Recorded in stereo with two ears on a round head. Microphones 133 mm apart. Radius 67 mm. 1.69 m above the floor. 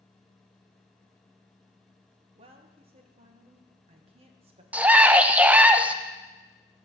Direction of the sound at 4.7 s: 10° right (ahead or behind).